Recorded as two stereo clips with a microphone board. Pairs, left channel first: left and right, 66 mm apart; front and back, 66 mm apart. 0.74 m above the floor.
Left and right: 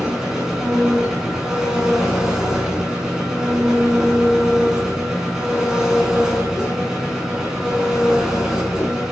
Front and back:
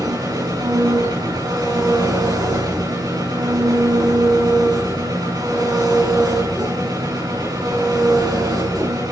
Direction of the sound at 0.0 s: 170° right.